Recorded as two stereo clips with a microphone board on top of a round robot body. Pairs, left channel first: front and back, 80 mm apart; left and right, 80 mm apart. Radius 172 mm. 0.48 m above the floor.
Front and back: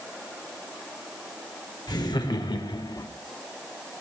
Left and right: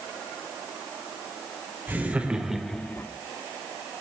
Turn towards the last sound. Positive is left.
turn(degrees=30)